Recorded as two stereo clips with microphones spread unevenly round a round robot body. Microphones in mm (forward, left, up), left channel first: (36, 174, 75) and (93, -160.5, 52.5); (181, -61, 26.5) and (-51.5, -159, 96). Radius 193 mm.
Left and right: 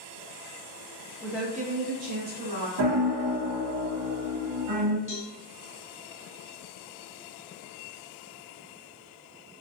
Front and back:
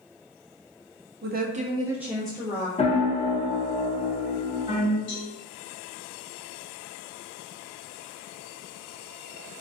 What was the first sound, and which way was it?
A woman speaking, 175° left.